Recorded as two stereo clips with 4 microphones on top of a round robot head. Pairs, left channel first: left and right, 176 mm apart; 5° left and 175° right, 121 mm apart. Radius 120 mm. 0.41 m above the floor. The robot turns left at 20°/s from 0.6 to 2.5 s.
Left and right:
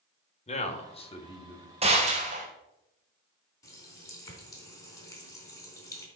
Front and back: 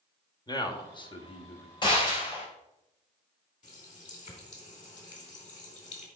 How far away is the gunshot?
About 2.5 m.